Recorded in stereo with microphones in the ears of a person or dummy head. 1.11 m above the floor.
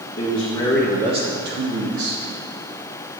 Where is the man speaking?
35° left (ahead or behind), 1.3 m; by 2.2 s 75° right (ahead or behind), 1.6 m.